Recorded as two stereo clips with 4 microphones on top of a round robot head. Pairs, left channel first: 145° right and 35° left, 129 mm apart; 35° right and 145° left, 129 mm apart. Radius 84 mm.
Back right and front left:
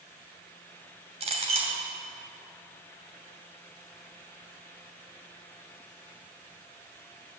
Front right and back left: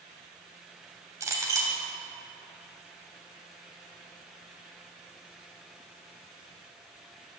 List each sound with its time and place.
1.2 s a clink: 75° left, 2.5 m